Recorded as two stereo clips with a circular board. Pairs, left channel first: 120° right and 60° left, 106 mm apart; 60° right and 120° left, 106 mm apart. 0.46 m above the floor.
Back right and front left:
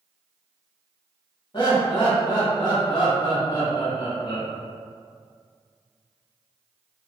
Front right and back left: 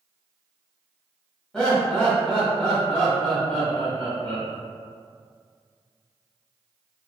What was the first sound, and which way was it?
Laughter, 140° right.